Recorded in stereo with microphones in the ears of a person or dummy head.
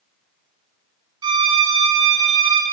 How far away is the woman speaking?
I don't hear a woman speaking.